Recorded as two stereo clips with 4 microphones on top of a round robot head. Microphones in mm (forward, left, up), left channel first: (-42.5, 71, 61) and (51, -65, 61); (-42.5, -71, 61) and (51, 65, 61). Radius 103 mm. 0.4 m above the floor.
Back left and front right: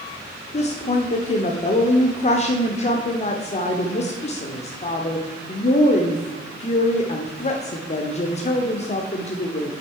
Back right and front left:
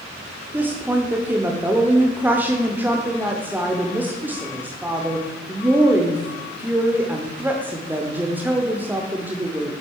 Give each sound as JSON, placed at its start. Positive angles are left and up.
{"t": 0.5, "sound": "a woman speaking", "azimuth_deg": 130, "distance_m": 1.0}